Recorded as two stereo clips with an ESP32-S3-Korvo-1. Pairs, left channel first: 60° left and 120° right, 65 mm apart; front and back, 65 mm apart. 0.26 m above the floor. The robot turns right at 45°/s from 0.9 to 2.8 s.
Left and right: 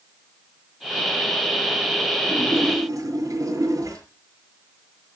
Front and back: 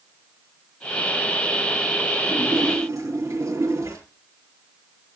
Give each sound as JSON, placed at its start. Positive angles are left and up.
{"t": 2.3, "sound": "a splash", "azimuth_deg": -170, "distance_m": 6.0}